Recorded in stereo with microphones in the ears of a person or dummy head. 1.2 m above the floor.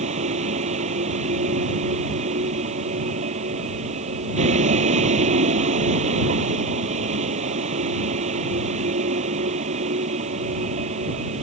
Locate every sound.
0.0 s a vehicle: 40° right (ahead or behind)